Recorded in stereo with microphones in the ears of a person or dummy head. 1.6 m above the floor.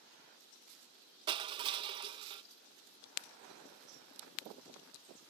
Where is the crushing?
30° right (ahead or behind).